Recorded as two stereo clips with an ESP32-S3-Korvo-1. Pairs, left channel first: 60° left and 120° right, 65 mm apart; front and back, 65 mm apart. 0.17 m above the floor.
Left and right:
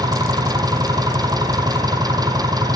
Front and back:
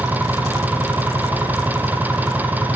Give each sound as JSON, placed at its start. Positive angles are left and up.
{"t": 0.0, "sound": "an engine running", "azimuth_deg": -115, "distance_m": 2.0}